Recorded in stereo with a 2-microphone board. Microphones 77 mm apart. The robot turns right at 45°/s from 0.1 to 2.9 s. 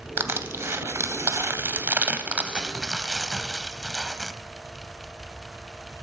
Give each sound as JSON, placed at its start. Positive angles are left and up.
{"t": 0.2, "sound": "crushing", "side_deg": -30, "distance_m": 0.7}